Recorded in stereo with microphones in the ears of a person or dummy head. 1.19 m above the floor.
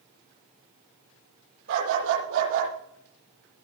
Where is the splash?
I don't hear a splash.